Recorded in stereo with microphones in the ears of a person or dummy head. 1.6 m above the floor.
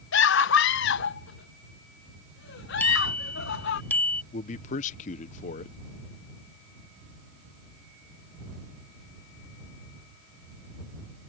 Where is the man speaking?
45° left (ahead or behind).